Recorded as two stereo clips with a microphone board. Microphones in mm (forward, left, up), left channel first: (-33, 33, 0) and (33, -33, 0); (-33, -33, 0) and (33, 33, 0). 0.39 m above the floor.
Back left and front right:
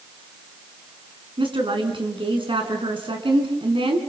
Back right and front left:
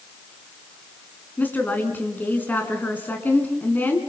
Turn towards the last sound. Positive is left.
turn(degrees=-65)